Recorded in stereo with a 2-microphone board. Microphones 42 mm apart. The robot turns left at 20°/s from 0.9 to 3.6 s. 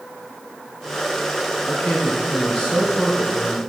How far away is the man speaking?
About 2.5 m.